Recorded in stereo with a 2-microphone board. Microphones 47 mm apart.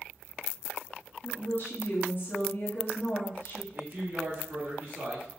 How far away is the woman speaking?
About 1.1 m.